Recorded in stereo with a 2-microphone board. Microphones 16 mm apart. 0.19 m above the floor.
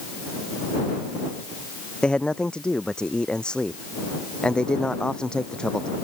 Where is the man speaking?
85° left; by 5.9 s 75° left (ahead or behind).